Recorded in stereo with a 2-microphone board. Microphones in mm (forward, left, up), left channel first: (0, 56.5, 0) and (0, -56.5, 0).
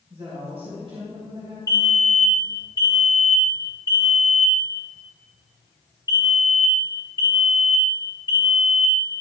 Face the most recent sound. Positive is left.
turn(degrees=30)  # may be behind; listen again after turning